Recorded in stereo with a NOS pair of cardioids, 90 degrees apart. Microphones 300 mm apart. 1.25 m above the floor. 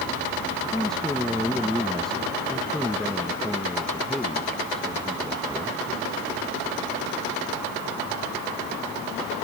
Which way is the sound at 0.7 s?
Straight ahead.